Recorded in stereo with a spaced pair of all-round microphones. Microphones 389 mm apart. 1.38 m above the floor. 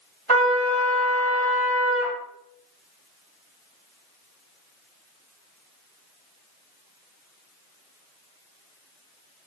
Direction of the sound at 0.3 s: 75° right (ahead or behind).